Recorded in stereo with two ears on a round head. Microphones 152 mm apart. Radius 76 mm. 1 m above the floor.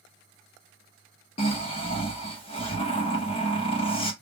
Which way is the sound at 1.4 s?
35° left (ahead or behind).